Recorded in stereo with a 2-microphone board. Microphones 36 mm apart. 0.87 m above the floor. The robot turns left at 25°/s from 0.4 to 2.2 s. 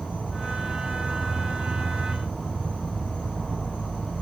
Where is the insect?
125° left, 1.5 m; by 4.2 s 80° left, 1.5 m.